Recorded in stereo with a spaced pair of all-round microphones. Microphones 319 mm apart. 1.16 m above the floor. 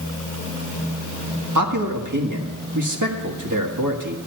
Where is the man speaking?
70° right (ahead or behind), 1.7 m.